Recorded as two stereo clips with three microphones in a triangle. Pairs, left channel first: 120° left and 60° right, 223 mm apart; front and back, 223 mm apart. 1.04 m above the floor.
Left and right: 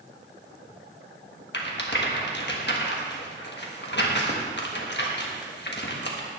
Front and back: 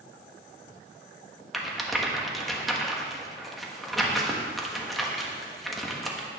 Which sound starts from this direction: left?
A rattle, at 1.5 s.